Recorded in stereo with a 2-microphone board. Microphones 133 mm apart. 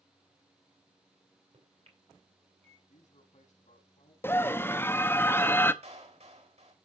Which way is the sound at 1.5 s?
55° right (ahead or behind).